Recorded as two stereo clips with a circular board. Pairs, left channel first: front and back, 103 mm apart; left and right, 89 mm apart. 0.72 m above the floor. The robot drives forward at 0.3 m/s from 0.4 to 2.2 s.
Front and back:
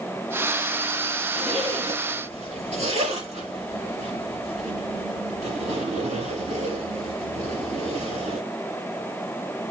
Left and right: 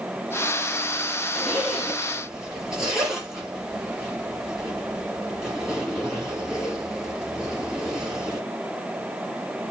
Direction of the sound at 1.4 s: 175° right.